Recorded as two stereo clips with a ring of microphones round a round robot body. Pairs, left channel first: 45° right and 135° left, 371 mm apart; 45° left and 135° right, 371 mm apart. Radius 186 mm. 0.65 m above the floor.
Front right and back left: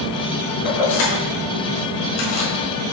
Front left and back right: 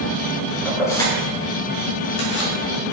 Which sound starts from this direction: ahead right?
Keys jangling, at 0.7 s.